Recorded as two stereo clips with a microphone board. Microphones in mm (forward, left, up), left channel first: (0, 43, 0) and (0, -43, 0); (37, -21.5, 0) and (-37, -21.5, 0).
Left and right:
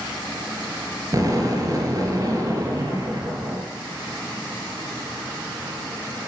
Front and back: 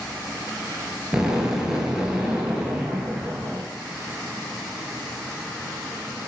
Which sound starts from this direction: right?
An explosion, at 1.1 s.